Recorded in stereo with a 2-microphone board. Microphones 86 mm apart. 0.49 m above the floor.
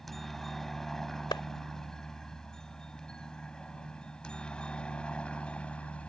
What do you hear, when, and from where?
0.0 s a helicopter: 5° left (ahead or behind); by 6.1 s 15° left (ahead or behind)
1.3 s a clap: 65° left (ahead or behind)